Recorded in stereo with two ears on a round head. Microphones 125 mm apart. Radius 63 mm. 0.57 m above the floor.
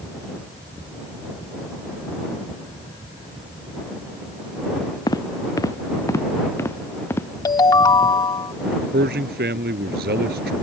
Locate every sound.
5.1 s footsteps: 25° left (ahead or behind); by 7.3 s 15° left (ahead or behind)
7.5 s a ringtone: 25° left (ahead or behind)
8.9 s a man speaking: 85° right